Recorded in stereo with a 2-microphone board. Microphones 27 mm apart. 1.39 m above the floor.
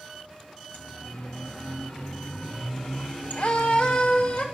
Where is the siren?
60° left (ahead or behind), 2.5 m; by 4.5 s 55° left (ahead or behind), 3 m.